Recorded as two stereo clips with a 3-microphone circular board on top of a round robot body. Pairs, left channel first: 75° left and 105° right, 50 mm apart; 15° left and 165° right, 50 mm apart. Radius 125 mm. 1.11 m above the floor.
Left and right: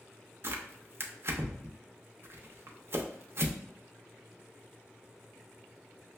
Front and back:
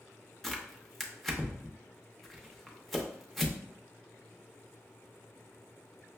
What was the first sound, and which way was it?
Tearing paper, 70° right.